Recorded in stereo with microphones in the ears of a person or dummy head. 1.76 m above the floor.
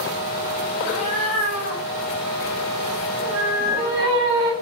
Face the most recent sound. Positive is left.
turn(degrees=-15)  # may be behind; listen again after turning